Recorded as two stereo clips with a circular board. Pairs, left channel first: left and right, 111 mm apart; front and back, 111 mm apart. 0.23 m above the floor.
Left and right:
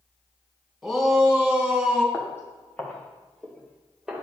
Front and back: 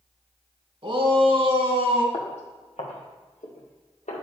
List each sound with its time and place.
0.8 s a shout: straight behind, 2 m; by 2.0 s 175° right, 3 m
2.1 s footsteps: 25° left, 2.5 m; by 4.2 s 5° right, 2.5 m